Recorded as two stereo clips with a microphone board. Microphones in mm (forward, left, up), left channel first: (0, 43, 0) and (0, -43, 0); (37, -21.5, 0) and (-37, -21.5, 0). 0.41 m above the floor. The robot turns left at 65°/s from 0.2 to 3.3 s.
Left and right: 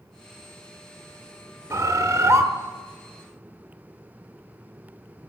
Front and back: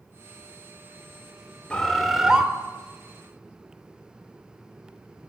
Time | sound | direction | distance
1.7 | a bird | 65° right | 1.0 m